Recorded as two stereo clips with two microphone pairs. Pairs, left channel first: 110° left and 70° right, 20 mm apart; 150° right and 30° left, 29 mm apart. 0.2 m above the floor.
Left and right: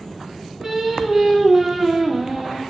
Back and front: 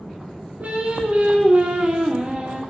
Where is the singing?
5° right, 0.6 m.